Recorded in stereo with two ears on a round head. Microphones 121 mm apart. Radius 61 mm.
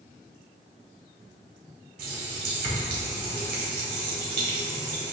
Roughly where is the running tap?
Right.